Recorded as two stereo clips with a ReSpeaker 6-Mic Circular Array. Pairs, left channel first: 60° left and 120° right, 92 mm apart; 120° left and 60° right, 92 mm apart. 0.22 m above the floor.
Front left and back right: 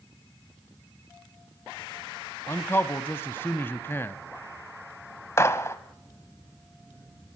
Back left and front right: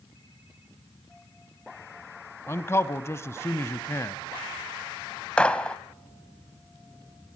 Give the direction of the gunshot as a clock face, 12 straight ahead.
10 o'clock.